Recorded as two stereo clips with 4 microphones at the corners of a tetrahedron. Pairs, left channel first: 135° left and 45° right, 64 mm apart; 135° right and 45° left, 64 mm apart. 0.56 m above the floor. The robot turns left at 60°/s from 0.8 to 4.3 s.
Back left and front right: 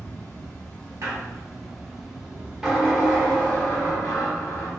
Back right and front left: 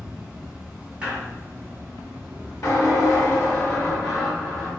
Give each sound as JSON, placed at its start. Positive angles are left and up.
{"t": 0.0, "sound": "an insect", "azimuth_deg": 95, "distance_m": 0.8}
{"t": 1.0, "sound": "a squeak", "azimuth_deg": -25, "distance_m": 1.0}